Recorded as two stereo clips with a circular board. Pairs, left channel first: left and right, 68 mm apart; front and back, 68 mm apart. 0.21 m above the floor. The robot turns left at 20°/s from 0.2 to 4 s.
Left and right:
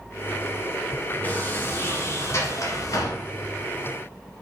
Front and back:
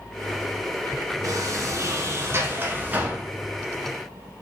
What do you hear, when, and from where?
1.2 s a sliding door: 155° left, 0.9 m; by 3.2 s 115° left, 0.9 m